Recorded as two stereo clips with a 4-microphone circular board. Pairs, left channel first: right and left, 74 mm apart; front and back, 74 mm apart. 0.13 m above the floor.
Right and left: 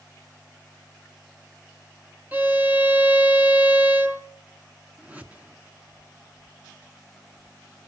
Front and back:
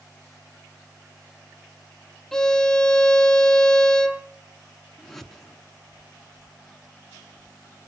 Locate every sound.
2.3 s a violin: 75° left, 1.1 m
5.0 s a whoosh: 80° left, 1.5 m